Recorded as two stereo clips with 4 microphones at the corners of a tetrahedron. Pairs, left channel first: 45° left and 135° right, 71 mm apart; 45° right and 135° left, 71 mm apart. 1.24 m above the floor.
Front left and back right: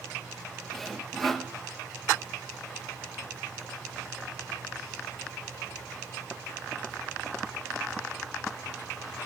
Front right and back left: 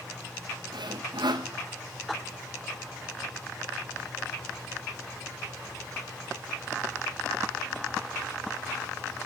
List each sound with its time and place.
0.7 s sawing: 130° left, 0.9 m